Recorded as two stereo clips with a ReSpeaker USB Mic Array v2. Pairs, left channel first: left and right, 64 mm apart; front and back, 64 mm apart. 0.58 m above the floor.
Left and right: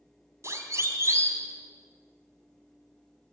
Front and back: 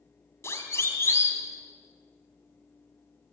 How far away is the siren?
About 3.5 m.